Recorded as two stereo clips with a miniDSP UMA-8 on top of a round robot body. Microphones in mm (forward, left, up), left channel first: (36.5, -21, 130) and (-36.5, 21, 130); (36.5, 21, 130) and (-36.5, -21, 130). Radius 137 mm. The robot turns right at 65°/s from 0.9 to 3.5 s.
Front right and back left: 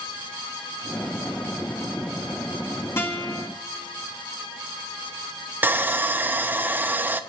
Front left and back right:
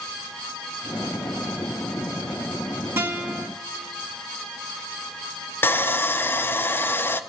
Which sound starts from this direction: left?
Sawing, at 5.6 s.